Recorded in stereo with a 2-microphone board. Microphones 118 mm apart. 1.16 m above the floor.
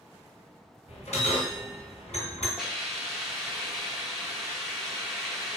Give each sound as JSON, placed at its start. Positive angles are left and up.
{"t": 0.9, "sound": "a bell", "side_deg": 65, "distance_m": 2.0}
{"t": 2.6, "sound": "a hiss", "side_deg": 0, "distance_m": 0.8}